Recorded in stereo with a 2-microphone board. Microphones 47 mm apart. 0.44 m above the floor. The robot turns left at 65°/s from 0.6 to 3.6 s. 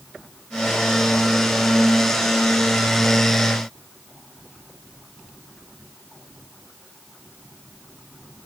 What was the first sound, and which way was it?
Only background noise.